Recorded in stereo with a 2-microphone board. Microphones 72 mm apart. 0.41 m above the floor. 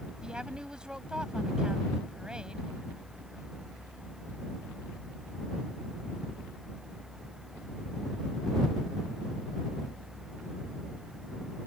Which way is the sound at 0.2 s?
15° right (ahead or behind).